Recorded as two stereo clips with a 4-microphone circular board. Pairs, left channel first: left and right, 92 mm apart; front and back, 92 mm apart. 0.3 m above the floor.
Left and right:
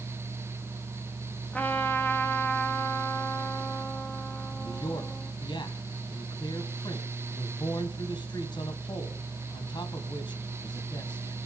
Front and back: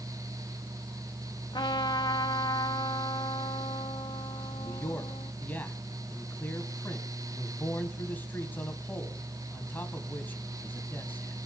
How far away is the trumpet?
About 1.6 m.